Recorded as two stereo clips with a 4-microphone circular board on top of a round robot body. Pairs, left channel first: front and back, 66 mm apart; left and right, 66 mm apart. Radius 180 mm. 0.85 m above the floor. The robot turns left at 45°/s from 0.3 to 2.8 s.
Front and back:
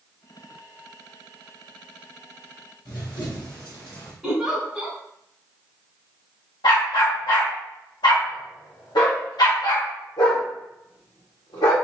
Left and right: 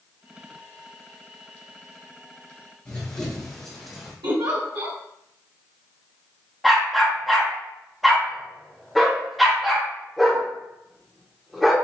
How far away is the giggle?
About 1.7 m.